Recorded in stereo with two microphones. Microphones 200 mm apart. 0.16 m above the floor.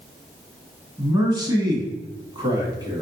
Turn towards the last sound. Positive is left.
turn(degrees=-20)  # may be behind; listen again after turning